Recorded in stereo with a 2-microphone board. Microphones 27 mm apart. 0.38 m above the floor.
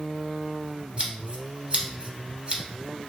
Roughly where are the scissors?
Right.